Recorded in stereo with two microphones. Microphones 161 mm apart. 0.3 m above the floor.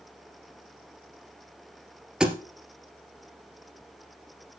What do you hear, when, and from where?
2.2 s a thud: 5° right (ahead or behind), 1.9 m